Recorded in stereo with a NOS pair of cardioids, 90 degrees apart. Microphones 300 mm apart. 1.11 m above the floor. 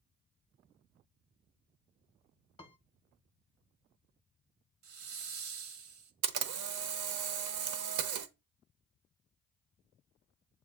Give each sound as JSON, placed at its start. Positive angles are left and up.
{"t": 2.6, "sound": "a piano", "azimuth_deg": 20, "distance_m": 0.6}
{"t": 4.8, "sound": "a hiss", "azimuth_deg": -65, "distance_m": 0.9}
{"t": 6.2, "sound": "a camera shutter", "azimuth_deg": -70, "distance_m": 0.7}